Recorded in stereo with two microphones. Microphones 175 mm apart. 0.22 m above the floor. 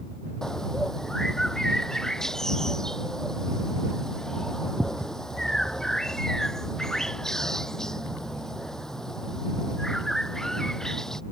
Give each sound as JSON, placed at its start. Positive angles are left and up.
{"t": 0.4, "sound": "a bird", "side_deg": 5}